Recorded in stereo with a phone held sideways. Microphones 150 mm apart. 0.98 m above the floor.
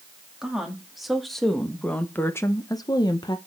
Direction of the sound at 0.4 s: 5° right (ahead or behind).